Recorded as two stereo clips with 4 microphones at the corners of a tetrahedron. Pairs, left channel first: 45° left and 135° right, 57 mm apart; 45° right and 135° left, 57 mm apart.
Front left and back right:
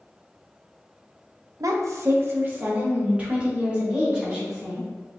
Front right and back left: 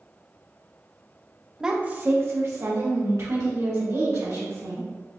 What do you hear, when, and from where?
1.6 s a woman speaking: 145° right, 0.6 m; by 4.9 s 150° left, 3 m